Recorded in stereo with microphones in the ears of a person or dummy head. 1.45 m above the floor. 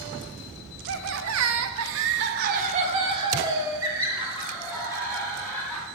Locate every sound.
0.9 s laughter: 60° right (ahead or behind), 0.9 m; by 5.8 s centre (ahead or behind), 2.5 m